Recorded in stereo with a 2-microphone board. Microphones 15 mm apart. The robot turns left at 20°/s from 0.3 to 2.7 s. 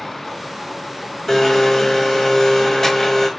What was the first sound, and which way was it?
A blender, 30° left (ahead or behind).